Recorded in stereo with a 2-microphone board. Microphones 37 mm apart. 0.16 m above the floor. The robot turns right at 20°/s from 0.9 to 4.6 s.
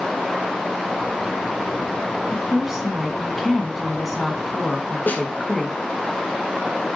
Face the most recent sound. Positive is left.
turn(degrees=50)  # may be behind; listen again after turning